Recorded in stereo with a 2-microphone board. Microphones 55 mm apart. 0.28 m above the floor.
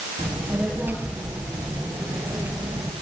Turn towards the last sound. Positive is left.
turn(degrees=-55)  # may be behind; listen again after turning